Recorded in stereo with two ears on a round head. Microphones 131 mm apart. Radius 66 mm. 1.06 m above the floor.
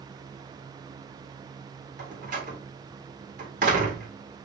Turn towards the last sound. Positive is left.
turn(degrees=-55)  # may be behind; listen again after turning